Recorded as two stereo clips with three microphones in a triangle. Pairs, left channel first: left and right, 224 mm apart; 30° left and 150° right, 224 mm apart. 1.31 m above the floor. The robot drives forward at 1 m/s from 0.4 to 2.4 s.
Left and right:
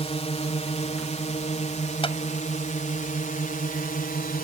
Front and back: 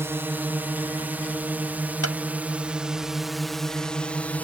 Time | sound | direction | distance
0.0 | a drone | 135° left | ?
2.0 | a clap | 25° left | ?